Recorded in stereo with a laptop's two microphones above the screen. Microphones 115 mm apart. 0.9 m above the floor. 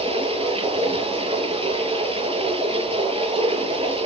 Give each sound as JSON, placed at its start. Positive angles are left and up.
{"t": 0.0, "sound": "running water", "side_deg": -60, "distance_m": 8.5}